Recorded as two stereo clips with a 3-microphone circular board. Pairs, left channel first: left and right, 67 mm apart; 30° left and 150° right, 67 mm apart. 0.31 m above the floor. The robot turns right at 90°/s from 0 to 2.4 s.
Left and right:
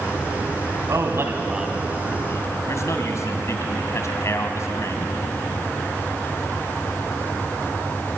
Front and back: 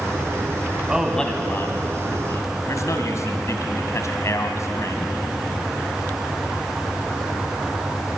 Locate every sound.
0.9 s a man speaking: 80° right, 2 m; by 5.1 s 60° left, 2 m